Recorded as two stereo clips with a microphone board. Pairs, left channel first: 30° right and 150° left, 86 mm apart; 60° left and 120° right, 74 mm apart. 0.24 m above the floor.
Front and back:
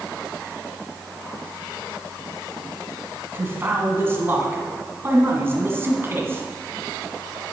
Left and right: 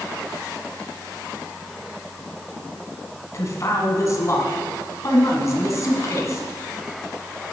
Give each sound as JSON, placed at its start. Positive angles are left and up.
{"t": 3.3, "sound": "a man speaking", "azimuth_deg": 95, "distance_m": 1.9}